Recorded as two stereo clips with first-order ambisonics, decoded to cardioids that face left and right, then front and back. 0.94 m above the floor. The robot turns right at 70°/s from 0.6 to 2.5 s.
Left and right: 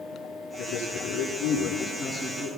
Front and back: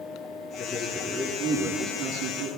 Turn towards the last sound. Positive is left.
turn(degrees=-155)